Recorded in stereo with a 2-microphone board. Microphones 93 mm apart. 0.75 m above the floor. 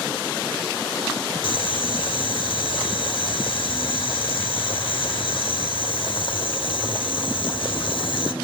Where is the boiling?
65° left (ahead or behind), 3 m.